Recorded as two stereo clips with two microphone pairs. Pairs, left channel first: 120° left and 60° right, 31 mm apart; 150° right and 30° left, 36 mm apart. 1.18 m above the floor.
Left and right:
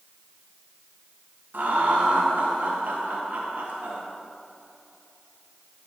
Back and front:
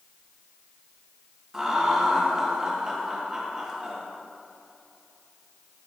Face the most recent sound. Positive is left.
turn(degrees=-45)